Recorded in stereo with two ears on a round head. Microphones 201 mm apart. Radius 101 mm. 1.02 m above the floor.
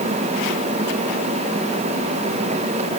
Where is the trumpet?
No trumpet in this recording.